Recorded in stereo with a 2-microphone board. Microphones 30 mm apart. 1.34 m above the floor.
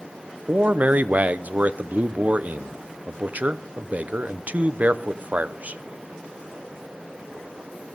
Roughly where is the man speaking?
Right.